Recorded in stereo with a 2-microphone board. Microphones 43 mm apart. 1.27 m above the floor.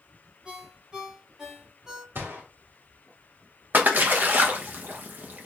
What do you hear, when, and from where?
0.5 s a ringtone: 15° right (ahead or behind), 1.4 m
2.1 s a gunshot: 70° right (ahead or behind), 1.9 m
3.7 s a splash: 50° right (ahead or behind), 0.9 m